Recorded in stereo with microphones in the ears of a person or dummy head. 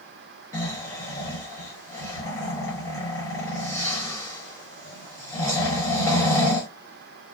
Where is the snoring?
20° left (ahead or behind), 0.9 m.